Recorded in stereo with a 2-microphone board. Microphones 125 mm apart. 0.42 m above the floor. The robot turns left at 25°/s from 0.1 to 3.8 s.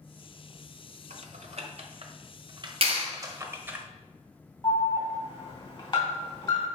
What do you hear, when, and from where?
1.1 s typing on a keyboard: 60° right (ahead or behind), 1.2 m; by 3.8 s 15° right (ahead or behind), 1.2 m
2.8 s a clap: 50° right (ahead or behind), 2.0 m; by 3.1 s 45° right (ahead or behind), 2.0 m
4.6 s an alarm: 40° left (ahead or behind), 3 m